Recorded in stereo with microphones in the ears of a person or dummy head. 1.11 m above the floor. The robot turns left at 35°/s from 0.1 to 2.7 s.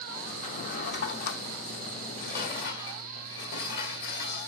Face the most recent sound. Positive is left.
turn(degrees=70)  # may be behind; listen again after turning